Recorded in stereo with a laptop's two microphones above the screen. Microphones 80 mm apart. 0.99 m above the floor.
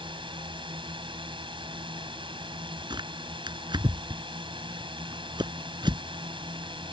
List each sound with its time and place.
0.0 s a drone: 75° right (ahead or behind)
2.9 s tearing paper: 65° right (ahead or behind)